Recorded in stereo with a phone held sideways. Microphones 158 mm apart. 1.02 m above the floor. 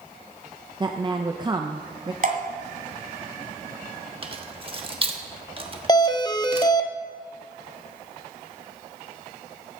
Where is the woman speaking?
30° right (ahead or behind), 0.6 m.